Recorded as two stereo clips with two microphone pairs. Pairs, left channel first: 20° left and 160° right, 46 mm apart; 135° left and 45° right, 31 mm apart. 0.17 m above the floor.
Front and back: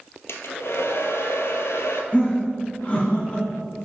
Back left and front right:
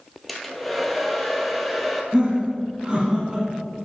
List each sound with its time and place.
0.3 s a hair dryer: 50° left, 0.9 m
2.1 s laughter: straight ahead, 1.4 m